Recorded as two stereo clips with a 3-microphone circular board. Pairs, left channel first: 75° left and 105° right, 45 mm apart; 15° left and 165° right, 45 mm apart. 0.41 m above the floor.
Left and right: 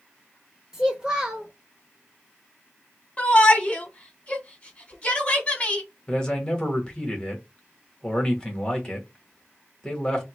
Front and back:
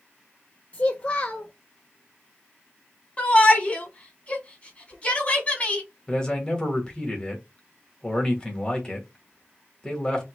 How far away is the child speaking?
About 0.6 m.